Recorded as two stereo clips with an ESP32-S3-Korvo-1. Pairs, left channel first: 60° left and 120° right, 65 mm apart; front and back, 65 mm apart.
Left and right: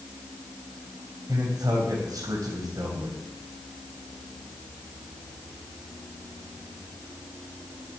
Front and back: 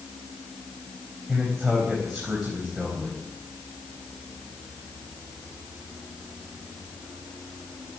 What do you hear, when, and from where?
1.3 s a man speaking: 95° right, 4 m